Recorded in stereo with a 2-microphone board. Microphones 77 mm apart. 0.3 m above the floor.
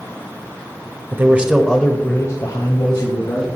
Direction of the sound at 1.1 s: 30° right (ahead or behind).